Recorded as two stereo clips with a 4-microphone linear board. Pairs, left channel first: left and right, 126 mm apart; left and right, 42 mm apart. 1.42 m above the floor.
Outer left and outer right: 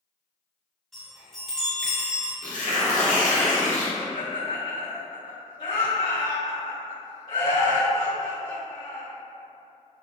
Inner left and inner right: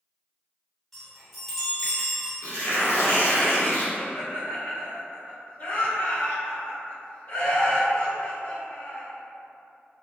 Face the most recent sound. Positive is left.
turn(degrees=80)